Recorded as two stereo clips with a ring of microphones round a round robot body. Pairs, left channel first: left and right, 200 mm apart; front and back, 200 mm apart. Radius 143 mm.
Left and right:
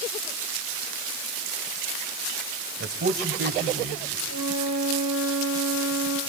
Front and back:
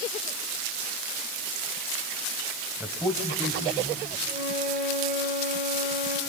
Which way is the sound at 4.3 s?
130° left.